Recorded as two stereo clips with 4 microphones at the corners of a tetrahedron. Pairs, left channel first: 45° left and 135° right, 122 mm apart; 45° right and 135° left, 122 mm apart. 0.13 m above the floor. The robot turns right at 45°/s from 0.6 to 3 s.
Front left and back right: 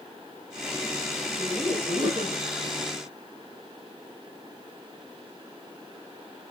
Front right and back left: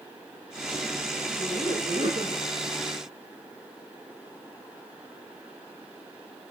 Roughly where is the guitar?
I don't hear a guitar.